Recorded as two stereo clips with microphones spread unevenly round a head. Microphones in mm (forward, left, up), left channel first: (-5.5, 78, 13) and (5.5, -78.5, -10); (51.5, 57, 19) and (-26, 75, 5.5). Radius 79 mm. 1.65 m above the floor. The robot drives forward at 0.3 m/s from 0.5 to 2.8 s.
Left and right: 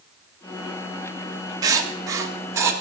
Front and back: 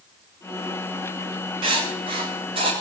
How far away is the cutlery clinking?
No cutlery clinking in this recording.